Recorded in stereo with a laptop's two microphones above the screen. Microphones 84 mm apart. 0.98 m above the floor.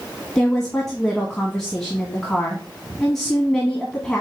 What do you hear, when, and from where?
0.3 s a woman speaking: 5° left (ahead or behind), 1.3 m